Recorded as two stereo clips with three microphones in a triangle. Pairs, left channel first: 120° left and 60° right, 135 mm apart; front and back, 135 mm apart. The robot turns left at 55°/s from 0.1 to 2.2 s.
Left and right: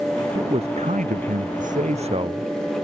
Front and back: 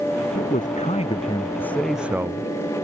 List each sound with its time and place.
0.3 s a man speaking: 5° right; by 2.5 s 110° right